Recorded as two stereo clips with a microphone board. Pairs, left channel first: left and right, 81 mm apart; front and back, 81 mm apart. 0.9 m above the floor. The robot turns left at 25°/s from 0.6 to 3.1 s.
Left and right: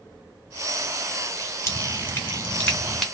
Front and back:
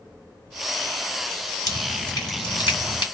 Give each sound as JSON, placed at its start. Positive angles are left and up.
{"t": 1.7, "sound": "dripping", "azimuth_deg": 40, "distance_m": 1.3}